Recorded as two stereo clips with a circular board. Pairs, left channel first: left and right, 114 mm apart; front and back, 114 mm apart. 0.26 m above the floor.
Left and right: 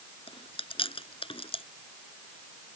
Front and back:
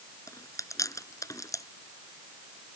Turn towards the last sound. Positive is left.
turn(degrees=60)